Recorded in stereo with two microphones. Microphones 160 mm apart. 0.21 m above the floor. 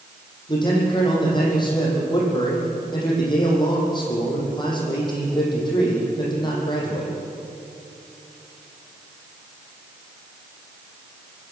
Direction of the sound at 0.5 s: 30° left (ahead or behind).